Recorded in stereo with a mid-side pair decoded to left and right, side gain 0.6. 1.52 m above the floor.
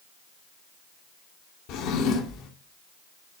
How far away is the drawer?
About 2.5 m.